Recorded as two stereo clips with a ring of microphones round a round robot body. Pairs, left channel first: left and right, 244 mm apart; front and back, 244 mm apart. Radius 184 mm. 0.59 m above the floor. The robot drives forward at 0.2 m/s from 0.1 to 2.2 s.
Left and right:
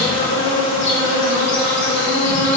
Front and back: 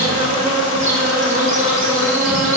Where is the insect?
120° left, 3.5 m; by 2.6 s 125° left, 3.5 m.